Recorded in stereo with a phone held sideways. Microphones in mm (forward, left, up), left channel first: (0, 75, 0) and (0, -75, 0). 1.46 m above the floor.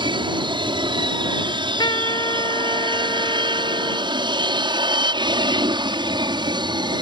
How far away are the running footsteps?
No running footsteps in this recording.